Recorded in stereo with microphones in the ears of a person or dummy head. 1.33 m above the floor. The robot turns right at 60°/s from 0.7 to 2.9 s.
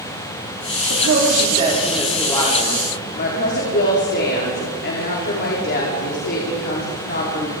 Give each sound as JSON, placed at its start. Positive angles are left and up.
{"t": 0.9, "sound": "a woman speaking", "azimuth_deg": -70, "distance_m": 4.0}